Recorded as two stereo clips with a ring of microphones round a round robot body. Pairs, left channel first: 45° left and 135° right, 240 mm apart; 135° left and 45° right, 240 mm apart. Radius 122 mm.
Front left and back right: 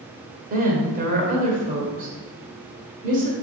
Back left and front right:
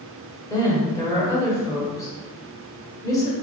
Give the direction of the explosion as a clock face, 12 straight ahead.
I don't hear an explosion.